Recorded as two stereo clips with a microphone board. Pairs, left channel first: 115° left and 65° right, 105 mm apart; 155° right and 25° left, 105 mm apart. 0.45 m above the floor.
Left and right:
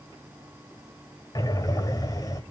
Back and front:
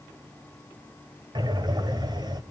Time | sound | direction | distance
1.4 | breathing | 65° left | 1.5 m